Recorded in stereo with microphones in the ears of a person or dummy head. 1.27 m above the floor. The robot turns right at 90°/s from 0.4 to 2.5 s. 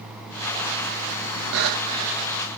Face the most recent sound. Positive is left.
turn(degrees=20)